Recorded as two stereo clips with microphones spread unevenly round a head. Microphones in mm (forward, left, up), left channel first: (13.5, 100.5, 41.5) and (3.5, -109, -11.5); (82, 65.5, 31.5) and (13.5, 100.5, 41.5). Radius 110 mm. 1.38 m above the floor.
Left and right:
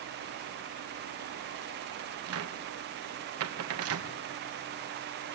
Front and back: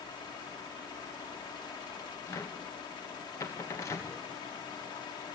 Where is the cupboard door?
95° right, 1.6 m.